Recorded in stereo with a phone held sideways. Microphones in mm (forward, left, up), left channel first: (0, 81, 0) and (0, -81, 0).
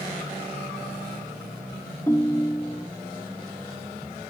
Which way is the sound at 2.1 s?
15° left (ahead or behind).